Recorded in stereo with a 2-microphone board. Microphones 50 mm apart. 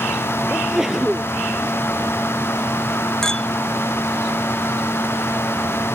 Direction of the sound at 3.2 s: 15° left (ahead or behind).